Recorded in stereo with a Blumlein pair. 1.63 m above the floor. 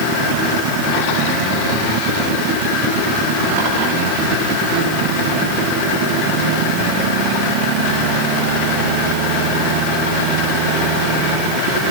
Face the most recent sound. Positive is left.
No sound to turn to.